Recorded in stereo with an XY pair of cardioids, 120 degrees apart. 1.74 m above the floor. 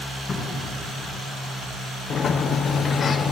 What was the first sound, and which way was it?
A cupboard door, 40° left.